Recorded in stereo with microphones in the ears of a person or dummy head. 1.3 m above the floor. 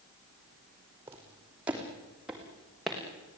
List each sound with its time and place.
1.1 s footsteps: 15° right (ahead or behind), 5 m; by 3.0 s 5° right (ahead or behind), 5 m